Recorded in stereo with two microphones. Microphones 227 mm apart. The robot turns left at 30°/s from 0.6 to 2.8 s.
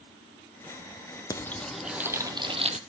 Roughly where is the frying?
Ahead.